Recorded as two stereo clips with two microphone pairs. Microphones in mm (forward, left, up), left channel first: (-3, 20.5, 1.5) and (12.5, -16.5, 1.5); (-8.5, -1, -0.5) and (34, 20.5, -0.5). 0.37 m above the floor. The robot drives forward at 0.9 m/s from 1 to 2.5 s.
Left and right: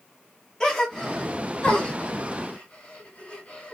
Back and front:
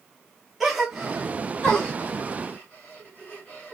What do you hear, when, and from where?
0.6 s a gasp: 90° left, 1.3 m; by 3.8 s 160° left, 1.9 m